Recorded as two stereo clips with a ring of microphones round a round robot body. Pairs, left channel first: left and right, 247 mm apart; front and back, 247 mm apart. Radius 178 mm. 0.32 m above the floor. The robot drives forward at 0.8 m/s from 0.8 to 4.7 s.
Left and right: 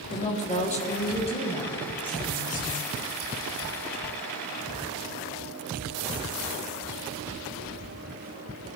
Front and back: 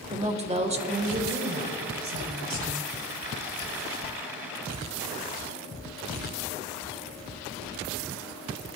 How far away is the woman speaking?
About 1.3 m.